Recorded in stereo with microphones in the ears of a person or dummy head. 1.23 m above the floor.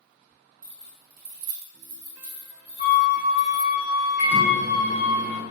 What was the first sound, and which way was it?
Keys jangling, 35° right (ahead or behind).